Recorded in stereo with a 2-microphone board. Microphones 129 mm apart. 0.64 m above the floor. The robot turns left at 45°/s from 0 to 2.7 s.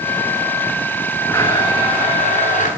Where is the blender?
165° left, 9.5 m; by 2.7 s 100° left, 9.5 m.